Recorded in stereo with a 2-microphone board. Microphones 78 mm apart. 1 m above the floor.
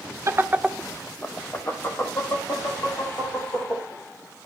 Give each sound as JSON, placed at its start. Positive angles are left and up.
{"t": 0.3, "sound": "laughter", "side_deg": -40, "distance_m": 0.8}